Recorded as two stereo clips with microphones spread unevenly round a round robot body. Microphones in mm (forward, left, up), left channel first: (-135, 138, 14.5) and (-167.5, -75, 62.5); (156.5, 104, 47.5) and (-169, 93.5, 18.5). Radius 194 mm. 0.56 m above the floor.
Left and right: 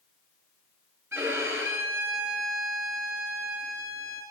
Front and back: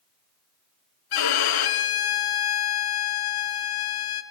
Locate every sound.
1.1 s a violin: 20° right, 1.2 m